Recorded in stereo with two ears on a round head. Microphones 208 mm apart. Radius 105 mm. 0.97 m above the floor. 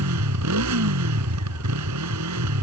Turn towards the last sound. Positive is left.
turn(degrees=-85)